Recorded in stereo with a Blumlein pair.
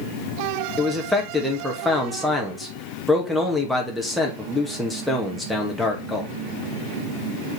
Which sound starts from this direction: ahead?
A man speaking, at 0.8 s.